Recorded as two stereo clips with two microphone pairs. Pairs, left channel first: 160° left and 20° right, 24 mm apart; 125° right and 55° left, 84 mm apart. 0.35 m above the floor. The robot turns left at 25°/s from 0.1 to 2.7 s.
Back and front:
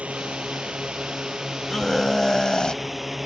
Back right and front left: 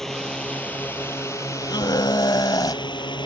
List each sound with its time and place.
0.0 s a drone: 40° right; by 3.3 s 100° right
1.7 s a scream: 130° right; by 2.8 s 155° right